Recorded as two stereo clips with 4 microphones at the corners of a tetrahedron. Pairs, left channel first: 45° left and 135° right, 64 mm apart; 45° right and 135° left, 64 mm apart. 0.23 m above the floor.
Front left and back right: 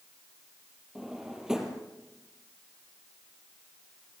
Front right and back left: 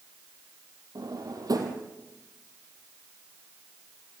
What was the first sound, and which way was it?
A drawer, 145° left.